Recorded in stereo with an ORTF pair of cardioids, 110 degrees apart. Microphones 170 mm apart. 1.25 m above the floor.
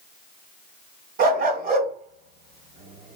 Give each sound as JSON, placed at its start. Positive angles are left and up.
{"t": 1.2, "sound": "a dog barking", "azimuth_deg": -65, "distance_m": 3.0}